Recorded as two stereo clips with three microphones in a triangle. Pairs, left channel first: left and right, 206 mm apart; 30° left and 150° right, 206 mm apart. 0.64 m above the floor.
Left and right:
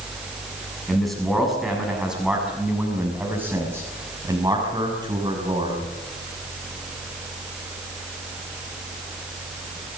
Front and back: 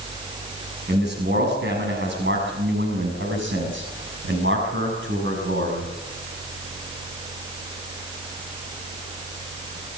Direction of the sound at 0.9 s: Straight behind.